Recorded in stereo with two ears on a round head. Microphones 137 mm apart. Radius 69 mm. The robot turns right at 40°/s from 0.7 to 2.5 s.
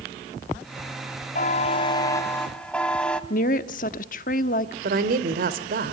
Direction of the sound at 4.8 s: 65° right (ahead or behind).